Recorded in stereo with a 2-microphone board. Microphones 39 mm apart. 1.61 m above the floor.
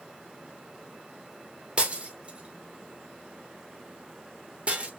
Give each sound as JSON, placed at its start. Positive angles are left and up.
{"t": 1.8, "sound": "breaking glass", "side_deg": -30, "distance_m": 0.9}